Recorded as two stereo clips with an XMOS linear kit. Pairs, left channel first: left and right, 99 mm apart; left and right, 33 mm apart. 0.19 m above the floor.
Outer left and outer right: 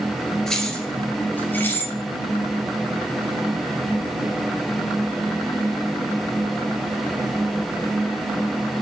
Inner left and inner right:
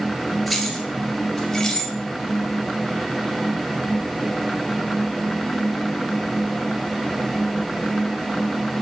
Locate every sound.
0.5 s keys jangling: 5° left (ahead or behind), 2.5 m; by 1.9 s 20° left (ahead or behind), 2 m